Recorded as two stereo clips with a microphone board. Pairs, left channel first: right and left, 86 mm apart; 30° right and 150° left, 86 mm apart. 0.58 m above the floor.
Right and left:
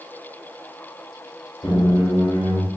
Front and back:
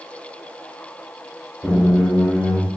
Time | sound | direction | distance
1.6 | a squeak | 115° right | 0.9 m